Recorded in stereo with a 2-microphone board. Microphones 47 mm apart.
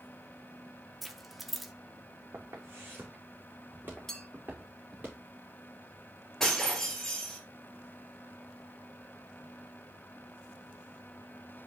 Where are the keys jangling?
Centre (ahead or behind), 0.7 m.